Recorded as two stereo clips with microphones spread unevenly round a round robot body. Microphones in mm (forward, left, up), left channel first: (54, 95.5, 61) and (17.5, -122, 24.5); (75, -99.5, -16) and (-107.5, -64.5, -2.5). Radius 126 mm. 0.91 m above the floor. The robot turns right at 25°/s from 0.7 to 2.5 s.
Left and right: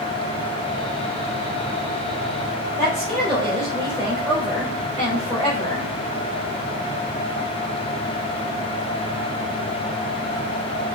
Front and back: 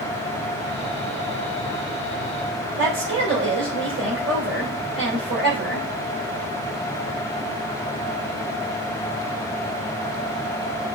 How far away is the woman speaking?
About 3 m.